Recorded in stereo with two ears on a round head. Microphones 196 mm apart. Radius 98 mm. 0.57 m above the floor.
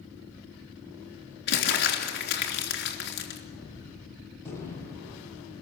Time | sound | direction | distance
1.5 | crumpling | 50° left (ahead or behind) | 3 m
3.5 | a gunshot | 15° left (ahead or behind) | 6 m